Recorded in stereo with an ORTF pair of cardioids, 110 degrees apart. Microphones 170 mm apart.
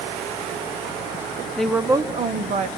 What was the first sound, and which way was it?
A woman speaking, 5° left.